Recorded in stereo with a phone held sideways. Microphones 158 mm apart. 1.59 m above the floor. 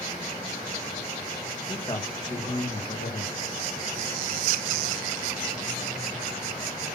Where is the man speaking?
25° left (ahead or behind), 2 m; by 3.4 s 50° left (ahead or behind), 2 m.